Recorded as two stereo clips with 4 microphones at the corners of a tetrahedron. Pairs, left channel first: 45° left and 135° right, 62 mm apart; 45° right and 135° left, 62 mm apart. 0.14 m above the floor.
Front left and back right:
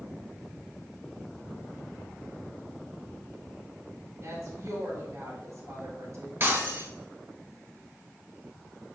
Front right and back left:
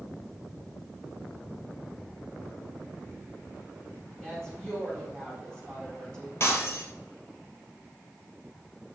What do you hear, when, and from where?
4.2 s a woman speaking: 125° right, 2.5 m
6.4 s breaking glass: 85° right, 1.3 m